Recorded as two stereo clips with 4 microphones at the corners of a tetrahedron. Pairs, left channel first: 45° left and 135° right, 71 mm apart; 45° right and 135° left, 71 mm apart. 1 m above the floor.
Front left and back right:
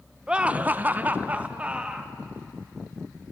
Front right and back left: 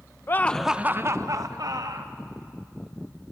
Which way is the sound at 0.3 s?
65° right.